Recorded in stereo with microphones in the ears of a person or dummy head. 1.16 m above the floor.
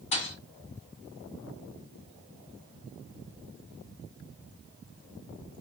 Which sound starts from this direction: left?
A thud, at 0.1 s.